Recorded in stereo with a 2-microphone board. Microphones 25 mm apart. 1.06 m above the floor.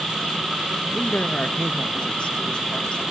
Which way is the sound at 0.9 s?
70° left (ahead or behind).